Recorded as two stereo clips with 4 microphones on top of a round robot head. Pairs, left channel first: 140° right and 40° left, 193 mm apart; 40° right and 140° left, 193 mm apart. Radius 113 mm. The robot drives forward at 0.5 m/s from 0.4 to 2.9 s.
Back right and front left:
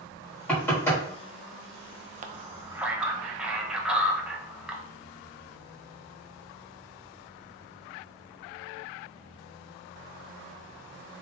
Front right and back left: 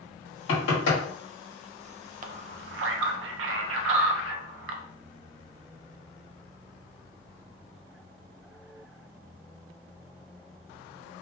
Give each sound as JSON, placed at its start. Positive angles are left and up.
{"t": 0.5, "sound": "knocking", "azimuth_deg": -60, "distance_m": 1.7}
{"t": 2.2, "sound": "a man speaking", "azimuth_deg": 90, "distance_m": 0.5}